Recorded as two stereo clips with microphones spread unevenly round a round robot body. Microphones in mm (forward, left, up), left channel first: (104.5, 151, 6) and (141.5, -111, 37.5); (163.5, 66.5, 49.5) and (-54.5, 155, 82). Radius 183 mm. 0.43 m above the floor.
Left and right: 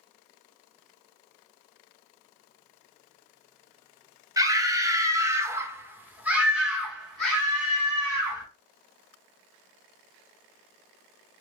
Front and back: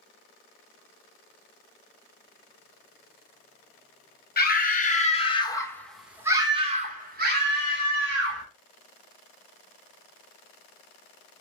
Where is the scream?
Straight ahead, 1.5 m; by 8.4 s 175° left, 1.7 m.